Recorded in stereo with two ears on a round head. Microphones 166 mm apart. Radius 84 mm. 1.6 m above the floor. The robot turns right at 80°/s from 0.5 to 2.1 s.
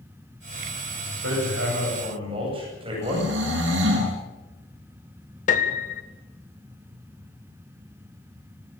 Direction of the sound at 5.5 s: 45° left (ahead or behind).